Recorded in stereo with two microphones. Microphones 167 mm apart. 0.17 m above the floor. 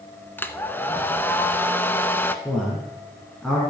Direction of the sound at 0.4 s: 10° left (ahead or behind).